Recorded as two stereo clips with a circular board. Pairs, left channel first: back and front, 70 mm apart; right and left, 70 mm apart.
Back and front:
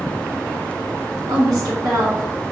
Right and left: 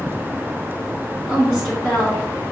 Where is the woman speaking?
10° left, 1.9 m.